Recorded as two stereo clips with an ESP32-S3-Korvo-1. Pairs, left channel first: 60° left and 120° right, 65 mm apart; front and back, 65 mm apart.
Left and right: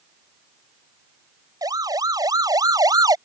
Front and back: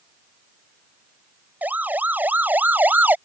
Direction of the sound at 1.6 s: 115° right.